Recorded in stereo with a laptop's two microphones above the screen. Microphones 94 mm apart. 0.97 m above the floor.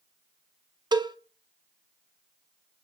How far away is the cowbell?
About 0.6 m.